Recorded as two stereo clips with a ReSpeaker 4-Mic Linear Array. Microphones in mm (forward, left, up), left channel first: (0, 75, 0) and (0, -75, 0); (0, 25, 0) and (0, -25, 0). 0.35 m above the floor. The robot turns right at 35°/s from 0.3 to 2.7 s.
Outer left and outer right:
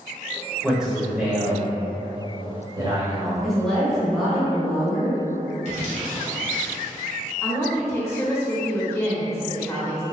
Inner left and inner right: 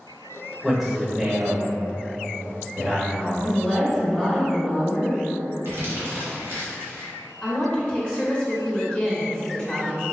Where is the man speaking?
Straight behind, 1.1 m; by 3.3 s 105° right, 1.1 m.